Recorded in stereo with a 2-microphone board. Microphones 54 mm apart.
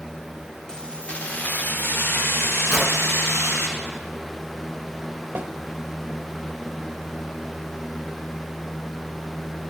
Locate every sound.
0.7 s keys jangling: 10° left (ahead or behind), 0.9 m; by 3.7 s 65° left (ahead or behind), 2.5 m
2.7 s a whoosh: 10° left (ahead or behind), 3 m
5.3 s a snare drum: 45° right (ahead or behind), 0.8 m